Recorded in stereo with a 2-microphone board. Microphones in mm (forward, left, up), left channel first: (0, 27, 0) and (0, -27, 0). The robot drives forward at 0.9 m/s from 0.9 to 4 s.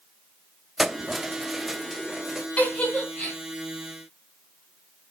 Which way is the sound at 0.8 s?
5° right (ahead or behind).